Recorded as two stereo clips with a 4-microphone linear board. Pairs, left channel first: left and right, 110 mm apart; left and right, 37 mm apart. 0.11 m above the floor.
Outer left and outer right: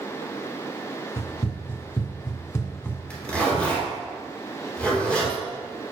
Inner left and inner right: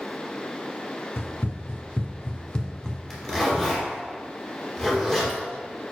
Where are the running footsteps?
75° left (ahead or behind), 1.6 m; by 3.0 s 15° left (ahead or behind), 1.6 m.